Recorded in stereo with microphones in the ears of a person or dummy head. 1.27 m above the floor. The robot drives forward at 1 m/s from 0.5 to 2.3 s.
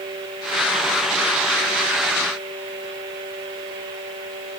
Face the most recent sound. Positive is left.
No sound to turn to.